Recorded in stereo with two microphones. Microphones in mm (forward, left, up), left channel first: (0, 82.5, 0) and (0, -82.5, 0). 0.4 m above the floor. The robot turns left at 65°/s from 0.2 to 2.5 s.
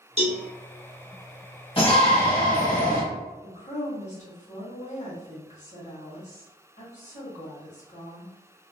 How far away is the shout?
About 1.7 m.